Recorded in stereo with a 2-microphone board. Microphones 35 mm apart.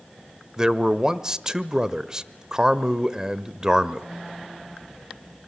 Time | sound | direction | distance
0.6 | a man speaking | 20° right (ahead or behind) | 0.9 m